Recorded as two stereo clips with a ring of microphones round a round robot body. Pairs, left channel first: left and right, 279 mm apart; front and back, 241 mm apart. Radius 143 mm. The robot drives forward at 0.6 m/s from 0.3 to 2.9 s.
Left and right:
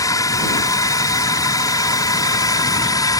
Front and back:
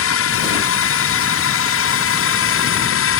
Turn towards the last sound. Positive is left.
turn(degrees=15)